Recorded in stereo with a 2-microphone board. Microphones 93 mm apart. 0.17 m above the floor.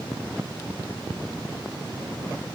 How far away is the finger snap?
I don't hear a finger snap.